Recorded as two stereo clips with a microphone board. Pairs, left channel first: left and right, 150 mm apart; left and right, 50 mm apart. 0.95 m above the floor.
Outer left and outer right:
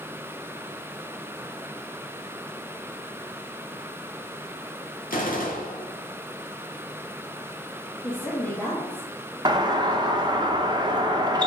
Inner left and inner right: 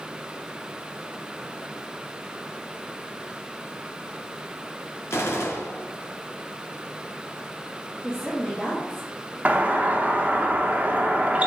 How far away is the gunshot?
About 1.3 m.